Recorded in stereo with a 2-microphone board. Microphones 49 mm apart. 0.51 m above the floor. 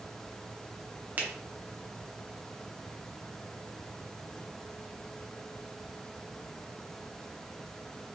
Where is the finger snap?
35° right (ahead or behind), 0.8 m.